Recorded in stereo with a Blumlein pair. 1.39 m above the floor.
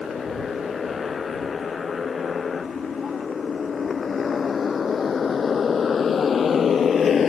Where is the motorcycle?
20° left.